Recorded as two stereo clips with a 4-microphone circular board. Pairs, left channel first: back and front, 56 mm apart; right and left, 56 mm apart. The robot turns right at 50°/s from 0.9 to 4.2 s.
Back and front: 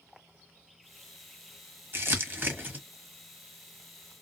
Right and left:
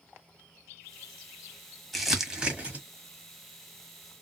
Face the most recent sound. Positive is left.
turn(degrees=115)